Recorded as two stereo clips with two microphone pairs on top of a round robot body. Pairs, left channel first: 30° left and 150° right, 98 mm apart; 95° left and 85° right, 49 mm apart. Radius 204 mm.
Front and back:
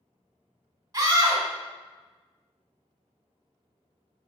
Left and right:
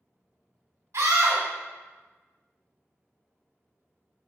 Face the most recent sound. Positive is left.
turn(degrees=-95)